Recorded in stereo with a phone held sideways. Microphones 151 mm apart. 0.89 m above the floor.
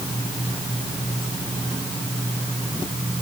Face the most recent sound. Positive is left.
No sound to turn to.